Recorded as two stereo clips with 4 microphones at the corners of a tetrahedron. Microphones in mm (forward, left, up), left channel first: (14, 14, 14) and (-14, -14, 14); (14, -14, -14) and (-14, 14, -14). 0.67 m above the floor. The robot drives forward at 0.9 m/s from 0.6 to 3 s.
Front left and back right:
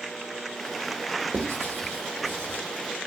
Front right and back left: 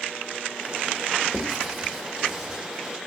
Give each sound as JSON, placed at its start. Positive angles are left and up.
{"t": 1.3, "sound": "writing", "azimuth_deg": -130, "distance_m": 3.0}